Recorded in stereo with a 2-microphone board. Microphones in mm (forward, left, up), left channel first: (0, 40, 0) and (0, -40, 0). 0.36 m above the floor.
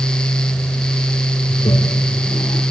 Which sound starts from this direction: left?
A toilet flushing, at 1.5 s.